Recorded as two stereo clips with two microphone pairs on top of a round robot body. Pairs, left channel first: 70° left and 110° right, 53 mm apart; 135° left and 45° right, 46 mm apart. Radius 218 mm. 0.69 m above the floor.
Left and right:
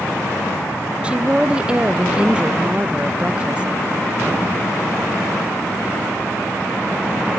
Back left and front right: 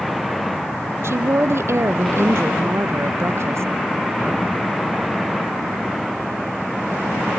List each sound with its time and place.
1.0 s a woman speaking: 40° right, 0.7 m